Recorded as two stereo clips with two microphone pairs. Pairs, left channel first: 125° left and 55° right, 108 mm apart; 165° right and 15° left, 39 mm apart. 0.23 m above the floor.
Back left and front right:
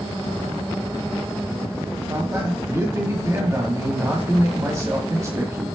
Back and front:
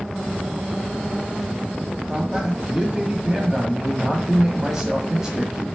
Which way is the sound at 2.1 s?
40° right.